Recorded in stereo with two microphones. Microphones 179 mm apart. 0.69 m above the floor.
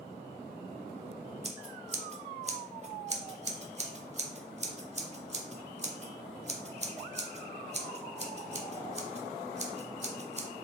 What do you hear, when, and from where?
1.4 s scissors: 40° right (ahead or behind), 0.5 m